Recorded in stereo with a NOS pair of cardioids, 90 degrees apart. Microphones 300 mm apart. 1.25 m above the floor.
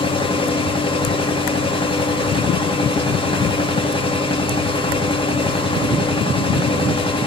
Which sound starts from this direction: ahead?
A machine running, at 0.0 s.